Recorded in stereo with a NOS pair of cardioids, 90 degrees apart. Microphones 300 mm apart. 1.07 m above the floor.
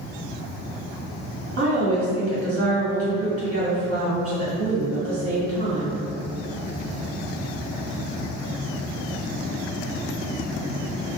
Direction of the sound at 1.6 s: 55° right.